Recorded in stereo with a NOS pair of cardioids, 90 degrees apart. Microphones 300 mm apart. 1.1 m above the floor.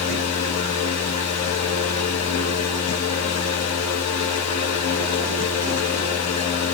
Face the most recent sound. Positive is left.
turn(degrees=60)